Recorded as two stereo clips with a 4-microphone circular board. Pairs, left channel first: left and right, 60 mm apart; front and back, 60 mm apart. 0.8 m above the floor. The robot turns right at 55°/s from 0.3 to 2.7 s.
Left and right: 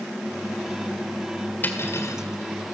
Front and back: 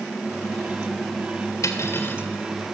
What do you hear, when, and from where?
1.6 s cutlery clinking: 30° left, 1.9 m; by 2.2 s 65° left, 1.9 m